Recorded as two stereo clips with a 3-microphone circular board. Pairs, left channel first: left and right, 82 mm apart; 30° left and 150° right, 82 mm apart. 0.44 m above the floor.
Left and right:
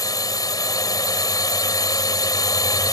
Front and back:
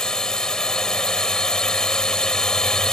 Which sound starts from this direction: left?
A drone, at 0.0 s.